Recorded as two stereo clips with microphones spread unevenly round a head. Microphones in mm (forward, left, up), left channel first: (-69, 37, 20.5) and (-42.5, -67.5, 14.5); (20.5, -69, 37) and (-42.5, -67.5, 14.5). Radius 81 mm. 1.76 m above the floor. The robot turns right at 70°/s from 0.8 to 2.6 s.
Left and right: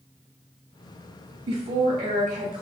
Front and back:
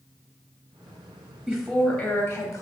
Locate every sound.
1.5 s a woman speaking: 90° right, 1.0 m; by 2.6 s 10° right, 1.0 m